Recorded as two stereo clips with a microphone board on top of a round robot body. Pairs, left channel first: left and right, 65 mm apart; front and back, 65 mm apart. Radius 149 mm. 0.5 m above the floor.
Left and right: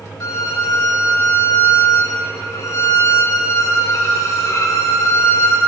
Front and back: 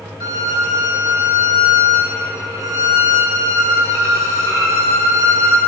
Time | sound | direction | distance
0.2 | a violin | 135° left | 1.0 m